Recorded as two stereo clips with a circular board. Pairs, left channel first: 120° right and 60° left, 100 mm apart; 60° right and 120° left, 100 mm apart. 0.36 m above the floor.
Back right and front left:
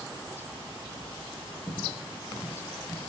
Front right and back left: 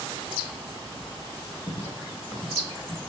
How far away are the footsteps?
About 4 m.